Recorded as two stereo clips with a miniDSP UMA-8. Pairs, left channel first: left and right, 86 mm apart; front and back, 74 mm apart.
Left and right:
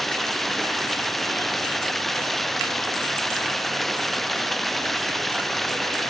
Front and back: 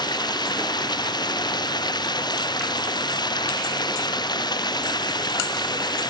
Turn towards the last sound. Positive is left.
turn(degrees=0)